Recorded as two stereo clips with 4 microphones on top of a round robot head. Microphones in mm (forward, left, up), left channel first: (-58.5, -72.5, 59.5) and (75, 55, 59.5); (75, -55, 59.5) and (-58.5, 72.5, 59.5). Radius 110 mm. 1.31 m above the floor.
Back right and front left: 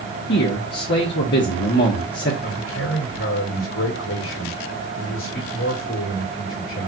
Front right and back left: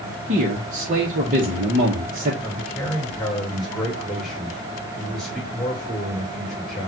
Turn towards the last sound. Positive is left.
turn(degrees=-135)